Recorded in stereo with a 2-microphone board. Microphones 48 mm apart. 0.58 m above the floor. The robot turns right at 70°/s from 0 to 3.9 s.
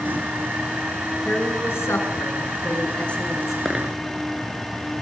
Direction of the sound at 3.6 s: 5° left (ahead or behind).